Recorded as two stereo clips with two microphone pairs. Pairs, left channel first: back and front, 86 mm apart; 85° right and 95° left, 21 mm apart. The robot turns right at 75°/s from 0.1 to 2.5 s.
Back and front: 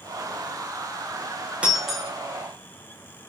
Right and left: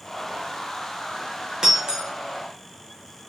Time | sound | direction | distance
1.6 | breaking glass | 65° left | 0.8 m